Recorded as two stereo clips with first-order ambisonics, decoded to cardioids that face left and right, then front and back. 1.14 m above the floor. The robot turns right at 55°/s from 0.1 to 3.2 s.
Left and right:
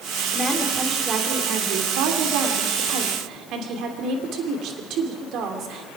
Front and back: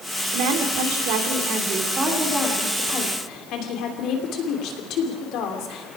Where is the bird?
I don't hear a bird.